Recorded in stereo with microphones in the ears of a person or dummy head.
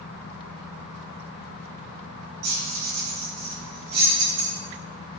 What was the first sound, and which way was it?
Keys jangling, 60° right (ahead or behind).